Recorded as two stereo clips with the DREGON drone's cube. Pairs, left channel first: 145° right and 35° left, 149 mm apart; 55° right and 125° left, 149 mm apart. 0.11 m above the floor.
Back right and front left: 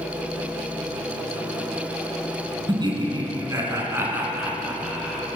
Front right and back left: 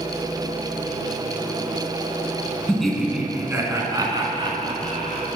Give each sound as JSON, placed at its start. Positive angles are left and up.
{"t": 2.7, "sound": "laughter", "azimuth_deg": 25, "distance_m": 1.2}